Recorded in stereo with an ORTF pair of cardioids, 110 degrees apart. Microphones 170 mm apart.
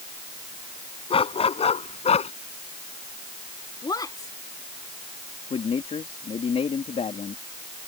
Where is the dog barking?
30° left; by 2.3 s 35° left.